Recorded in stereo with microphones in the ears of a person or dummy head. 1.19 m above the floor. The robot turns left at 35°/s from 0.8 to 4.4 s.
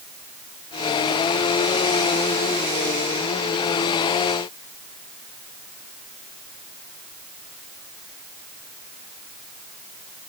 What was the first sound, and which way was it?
Only background noise.